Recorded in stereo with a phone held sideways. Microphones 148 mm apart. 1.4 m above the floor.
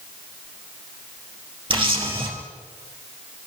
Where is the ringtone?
No ringtone in this recording.